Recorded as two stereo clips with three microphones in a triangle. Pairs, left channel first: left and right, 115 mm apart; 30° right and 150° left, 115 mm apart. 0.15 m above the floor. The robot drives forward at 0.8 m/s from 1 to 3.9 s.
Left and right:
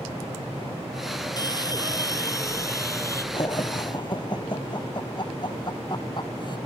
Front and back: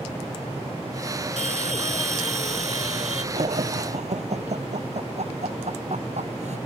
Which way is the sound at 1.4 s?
145° left.